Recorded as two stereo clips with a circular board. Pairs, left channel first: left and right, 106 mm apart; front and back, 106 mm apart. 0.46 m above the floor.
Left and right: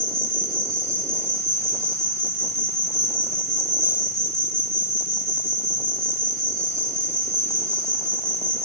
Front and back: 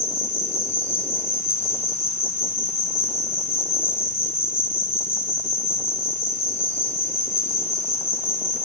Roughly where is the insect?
Ahead.